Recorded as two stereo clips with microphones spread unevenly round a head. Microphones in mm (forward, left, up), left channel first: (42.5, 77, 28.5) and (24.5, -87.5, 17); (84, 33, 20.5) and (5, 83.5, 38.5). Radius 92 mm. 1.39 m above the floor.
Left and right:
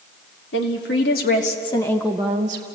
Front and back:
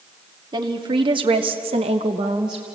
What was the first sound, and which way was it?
A woman speaking, 115° left.